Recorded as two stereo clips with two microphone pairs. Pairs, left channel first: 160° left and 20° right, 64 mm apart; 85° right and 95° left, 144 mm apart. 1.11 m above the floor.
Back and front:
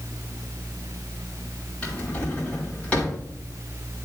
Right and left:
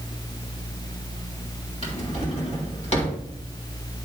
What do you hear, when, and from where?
1.8 s a drawer: 130° right, 3.5 m